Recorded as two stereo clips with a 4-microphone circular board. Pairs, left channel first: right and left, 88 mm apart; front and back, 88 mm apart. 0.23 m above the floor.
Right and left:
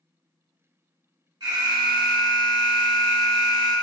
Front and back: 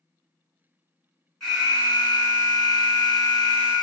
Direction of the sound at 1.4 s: 85° left.